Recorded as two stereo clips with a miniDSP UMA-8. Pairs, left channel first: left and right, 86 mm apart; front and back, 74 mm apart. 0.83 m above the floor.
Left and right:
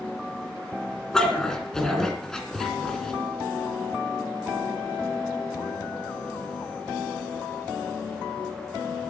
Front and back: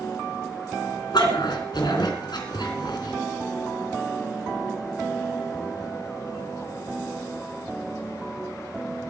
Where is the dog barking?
10° left, 2.5 m.